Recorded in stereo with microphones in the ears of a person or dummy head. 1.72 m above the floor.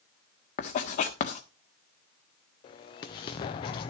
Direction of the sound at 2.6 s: 25° left (ahead or behind).